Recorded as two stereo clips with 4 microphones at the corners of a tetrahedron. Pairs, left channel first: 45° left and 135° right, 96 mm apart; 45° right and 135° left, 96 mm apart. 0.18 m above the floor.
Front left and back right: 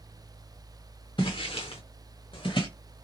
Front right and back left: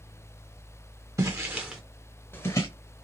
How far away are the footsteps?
About 1.0 m.